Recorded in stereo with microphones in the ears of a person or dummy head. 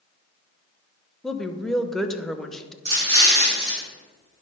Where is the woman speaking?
Centre (ahead or behind), 0.7 m.